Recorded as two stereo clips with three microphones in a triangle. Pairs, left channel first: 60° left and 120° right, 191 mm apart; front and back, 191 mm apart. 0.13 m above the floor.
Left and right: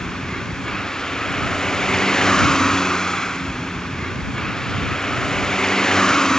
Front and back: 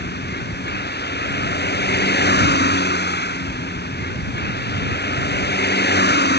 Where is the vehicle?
25° right.